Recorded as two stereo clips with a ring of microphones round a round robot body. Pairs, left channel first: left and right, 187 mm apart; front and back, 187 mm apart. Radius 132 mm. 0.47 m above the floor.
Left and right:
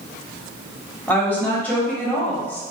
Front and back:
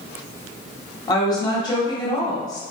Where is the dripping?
I don't hear dripping.